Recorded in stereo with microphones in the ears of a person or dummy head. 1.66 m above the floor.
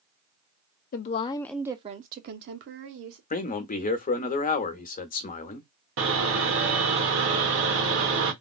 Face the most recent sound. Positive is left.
turn(degrees=-70)  # may be behind; listen again after turning